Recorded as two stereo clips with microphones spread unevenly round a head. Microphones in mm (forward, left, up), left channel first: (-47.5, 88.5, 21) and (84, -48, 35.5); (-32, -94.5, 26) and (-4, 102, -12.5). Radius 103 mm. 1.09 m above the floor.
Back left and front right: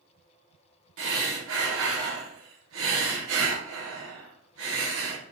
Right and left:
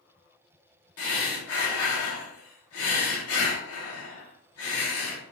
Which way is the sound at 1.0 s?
70° right.